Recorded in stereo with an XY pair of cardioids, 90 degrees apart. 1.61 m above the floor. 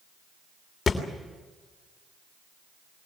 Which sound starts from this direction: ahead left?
A thud, at 0.9 s.